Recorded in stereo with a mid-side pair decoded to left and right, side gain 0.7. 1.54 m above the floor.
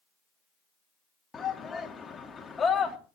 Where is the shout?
25° left, 3 m.